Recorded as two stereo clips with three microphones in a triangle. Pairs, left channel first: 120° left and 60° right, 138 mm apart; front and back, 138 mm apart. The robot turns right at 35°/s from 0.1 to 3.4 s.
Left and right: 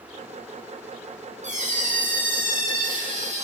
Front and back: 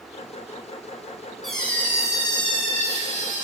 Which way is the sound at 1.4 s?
90° right.